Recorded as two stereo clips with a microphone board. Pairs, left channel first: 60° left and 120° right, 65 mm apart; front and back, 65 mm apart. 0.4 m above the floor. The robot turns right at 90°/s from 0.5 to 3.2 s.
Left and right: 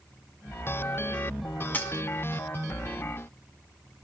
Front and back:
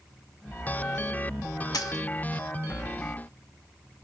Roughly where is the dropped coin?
Ahead.